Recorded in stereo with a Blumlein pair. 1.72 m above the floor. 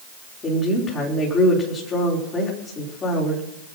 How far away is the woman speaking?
About 5.5 m.